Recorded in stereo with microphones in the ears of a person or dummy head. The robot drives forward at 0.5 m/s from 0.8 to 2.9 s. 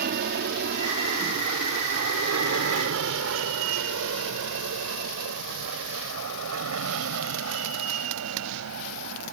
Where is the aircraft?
50° right (ahead or behind); by 9.3 s 80° right.